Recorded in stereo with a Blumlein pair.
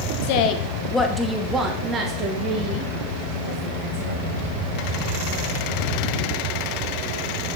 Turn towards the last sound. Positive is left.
turn(degrees=-45)